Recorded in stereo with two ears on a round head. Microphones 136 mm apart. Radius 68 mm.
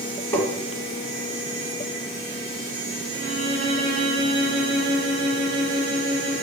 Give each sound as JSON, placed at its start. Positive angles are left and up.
{"t": 0.3, "sound": "tapping", "side_deg": 20, "distance_m": 1.5}
{"t": 3.1, "sound": "a violin", "side_deg": 25, "distance_m": 2.5}